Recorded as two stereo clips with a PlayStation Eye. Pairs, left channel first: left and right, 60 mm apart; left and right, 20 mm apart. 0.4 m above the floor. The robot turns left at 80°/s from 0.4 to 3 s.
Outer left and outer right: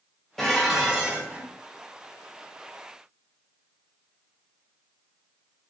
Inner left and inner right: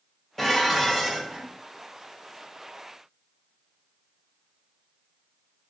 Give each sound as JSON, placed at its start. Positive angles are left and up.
{"t": 0.4, "sound": "dishes clattering", "azimuth_deg": 10, "distance_m": 0.6}